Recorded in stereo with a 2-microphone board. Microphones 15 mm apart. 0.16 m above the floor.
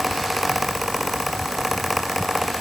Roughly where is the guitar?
No guitar in this recording.